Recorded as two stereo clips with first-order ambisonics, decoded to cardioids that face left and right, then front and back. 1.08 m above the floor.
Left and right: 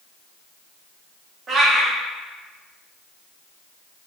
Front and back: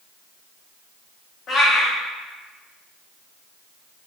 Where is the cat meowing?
45° right, 0.5 m.